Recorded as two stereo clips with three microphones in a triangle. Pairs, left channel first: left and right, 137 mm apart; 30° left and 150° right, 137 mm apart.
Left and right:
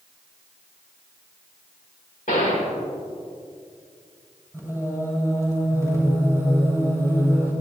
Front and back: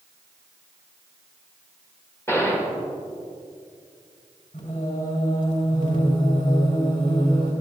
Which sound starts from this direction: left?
A gunshot, at 2.3 s.